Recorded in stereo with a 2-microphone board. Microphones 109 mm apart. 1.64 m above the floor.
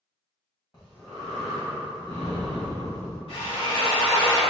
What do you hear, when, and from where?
0.7 s breathing: 40° left (ahead or behind), 1.8 m
3.3 s a drill: 60° left (ahead or behind), 1.8 m